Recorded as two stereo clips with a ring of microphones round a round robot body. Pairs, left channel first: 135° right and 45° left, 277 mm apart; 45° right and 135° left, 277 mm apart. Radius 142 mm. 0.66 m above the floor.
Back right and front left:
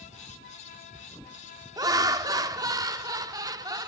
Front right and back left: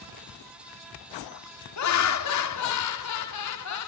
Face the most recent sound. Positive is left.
turn(degrees=-30)